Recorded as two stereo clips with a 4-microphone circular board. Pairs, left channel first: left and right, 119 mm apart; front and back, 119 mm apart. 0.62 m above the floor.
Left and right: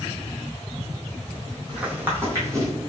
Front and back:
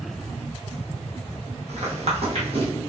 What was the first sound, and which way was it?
Footsteps, 170° right.